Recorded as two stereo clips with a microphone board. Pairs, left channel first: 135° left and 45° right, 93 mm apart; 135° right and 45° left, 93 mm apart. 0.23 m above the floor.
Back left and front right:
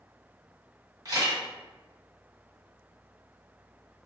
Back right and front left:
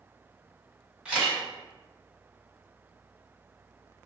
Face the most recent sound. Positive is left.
turn(degrees=-30)